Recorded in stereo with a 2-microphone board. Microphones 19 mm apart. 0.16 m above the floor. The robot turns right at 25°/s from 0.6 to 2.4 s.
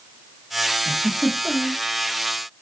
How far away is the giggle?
About 2 m.